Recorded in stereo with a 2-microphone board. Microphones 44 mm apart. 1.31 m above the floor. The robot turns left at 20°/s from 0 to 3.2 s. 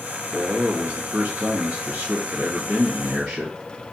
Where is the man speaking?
110° right, 1.0 m; by 3.5 s 170° right, 1.0 m.